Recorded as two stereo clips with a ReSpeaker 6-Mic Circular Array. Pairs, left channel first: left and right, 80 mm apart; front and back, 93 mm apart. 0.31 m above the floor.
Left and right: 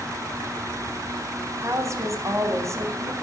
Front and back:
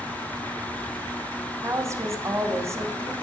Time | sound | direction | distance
1.6 | a woman speaking | 130° right | 2.5 m